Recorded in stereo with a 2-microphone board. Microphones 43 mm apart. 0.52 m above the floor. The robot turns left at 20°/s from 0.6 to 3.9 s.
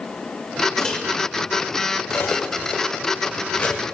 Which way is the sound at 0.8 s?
10° left (ahead or behind).